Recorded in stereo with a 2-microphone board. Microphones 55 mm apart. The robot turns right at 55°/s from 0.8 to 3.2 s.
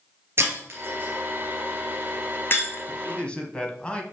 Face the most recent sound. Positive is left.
turn(degrees=20)  # may be behind; listen again after turning